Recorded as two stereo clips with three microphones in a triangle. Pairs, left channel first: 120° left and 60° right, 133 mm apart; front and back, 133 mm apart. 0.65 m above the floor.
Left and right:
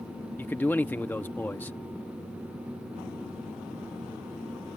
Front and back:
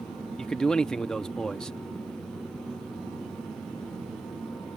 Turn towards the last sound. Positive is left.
turn(degrees=75)